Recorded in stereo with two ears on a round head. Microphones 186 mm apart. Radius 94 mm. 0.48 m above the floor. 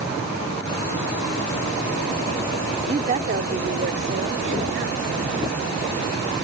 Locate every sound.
2.9 s a woman speaking: 25° right (ahead or behind); by 6.3 s 60° right (ahead or behind)